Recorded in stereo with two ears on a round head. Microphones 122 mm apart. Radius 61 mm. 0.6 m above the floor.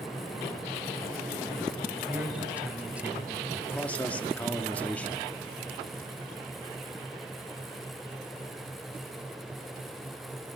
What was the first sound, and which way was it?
A man speaking, 10° right (ahead or behind).